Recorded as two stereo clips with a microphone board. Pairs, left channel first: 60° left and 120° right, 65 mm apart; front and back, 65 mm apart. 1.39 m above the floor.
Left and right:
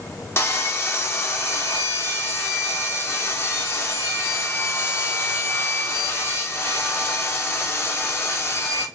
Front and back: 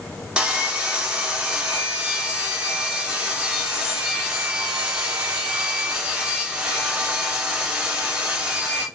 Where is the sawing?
105° left, 0.8 m.